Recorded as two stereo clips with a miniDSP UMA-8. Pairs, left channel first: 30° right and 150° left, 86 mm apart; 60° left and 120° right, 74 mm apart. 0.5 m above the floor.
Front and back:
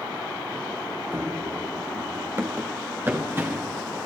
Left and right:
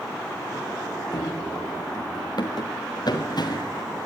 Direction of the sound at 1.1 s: 85° left.